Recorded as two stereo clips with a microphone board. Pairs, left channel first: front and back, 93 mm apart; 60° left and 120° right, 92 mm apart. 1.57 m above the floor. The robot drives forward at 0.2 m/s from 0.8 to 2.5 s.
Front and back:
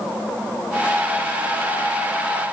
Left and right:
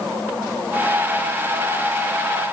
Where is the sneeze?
I don't hear a sneeze.